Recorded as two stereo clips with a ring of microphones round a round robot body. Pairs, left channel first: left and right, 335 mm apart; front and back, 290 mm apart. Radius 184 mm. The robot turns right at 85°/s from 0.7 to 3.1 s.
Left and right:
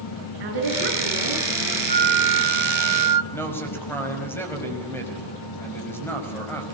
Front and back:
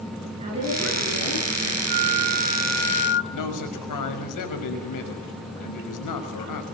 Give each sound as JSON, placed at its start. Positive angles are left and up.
{"t": 0.4, "sound": "a woman speaking", "azimuth_deg": -105, "distance_m": 9.0}
{"t": 1.9, "sound": "a flute", "azimuth_deg": -160, "distance_m": 0.8}
{"t": 3.3, "sound": "a man speaking", "azimuth_deg": 5, "distance_m": 5.5}